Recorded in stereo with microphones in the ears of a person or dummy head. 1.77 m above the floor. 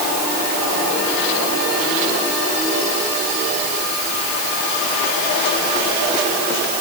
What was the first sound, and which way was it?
Only background noise.